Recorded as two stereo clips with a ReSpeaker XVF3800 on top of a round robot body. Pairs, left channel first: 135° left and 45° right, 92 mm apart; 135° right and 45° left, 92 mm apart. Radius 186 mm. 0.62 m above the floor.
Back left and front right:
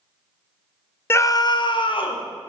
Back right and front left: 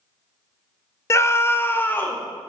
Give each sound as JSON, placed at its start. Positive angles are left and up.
{"t": 1.1, "sound": "a scream", "azimuth_deg": -175, "distance_m": 0.6}